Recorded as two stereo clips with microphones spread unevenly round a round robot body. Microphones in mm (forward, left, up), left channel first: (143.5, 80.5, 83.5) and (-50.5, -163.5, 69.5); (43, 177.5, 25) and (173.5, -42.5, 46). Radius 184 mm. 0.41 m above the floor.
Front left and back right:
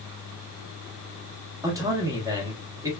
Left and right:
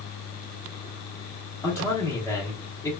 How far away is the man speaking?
About 0.9 m.